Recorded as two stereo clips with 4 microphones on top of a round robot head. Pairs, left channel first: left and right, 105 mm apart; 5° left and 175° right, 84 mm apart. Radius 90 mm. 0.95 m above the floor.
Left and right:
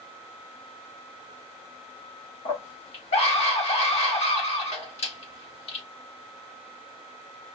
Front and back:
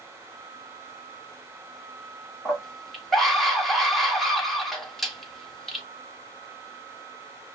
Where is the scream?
95° left, 1.9 m.